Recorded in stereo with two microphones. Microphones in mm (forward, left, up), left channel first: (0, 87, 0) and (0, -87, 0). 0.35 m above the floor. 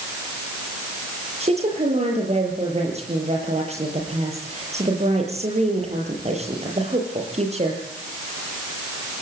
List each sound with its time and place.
1.4 s a woman speaking: 40° right (ahead or behind), 9.5 m